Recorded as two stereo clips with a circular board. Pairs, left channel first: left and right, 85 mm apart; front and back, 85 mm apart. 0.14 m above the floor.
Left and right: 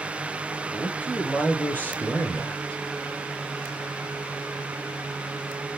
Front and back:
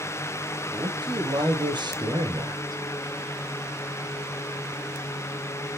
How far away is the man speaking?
About 4 m.